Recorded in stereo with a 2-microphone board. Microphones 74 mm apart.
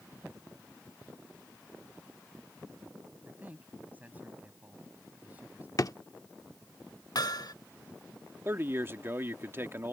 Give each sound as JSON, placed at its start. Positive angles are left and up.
{"t": 3.2, "sound": "a man speaking", "side_deg": -25}
{"t": 5.8, "sound": "a drawer", "side_deg": 55}
{"t": 7.2, "sound": "hammering", "side_deg": 65}
{"t": 8.4, "sound": "a man speaking", "side_deg": -30}